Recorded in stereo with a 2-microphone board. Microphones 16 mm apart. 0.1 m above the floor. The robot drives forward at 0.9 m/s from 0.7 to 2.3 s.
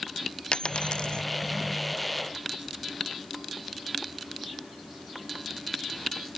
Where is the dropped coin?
80° left; by 1.2 s 75° left (ahead or behind).